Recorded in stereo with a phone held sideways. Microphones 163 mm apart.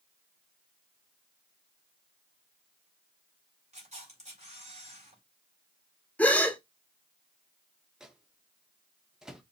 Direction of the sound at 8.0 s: 5° right (ahead or behind).